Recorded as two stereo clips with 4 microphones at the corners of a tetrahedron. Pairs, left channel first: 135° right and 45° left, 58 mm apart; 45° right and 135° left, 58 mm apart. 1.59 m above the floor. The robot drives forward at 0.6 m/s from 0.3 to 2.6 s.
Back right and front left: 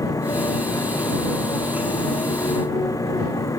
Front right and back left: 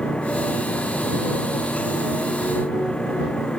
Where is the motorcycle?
120° right.